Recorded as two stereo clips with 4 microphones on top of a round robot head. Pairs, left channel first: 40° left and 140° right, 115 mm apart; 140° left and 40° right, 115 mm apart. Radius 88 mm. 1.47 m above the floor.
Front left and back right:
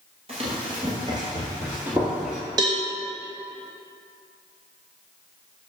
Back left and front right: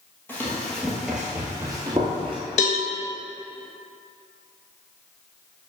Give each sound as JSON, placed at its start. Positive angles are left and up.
{"t": 0.3, "sound": "running footsteps", "azimuth_deg": -150, "distance_m": 1.7}
{"t": 2.6, "sound": "a cowbell", "azimuth_deg": 165, "distance_m": 1.0}